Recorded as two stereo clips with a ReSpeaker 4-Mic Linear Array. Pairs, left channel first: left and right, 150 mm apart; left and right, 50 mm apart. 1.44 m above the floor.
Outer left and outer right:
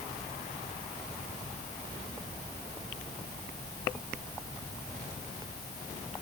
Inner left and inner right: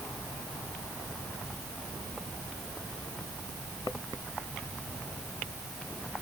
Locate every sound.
Only background noise.